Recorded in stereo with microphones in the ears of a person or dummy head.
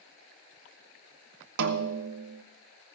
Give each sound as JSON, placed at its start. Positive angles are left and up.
{"t": 1.6, "sound": "a snare drum", "side_deg": -60, "distance_m": 0.7}